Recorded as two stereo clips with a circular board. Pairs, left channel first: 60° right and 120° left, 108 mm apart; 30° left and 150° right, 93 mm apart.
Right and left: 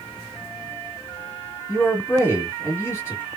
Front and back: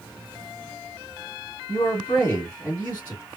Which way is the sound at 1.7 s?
25° right.